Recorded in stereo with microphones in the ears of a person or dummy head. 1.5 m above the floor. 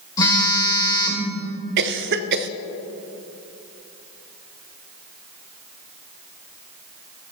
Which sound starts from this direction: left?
A phone buzzing, at 0.2 s.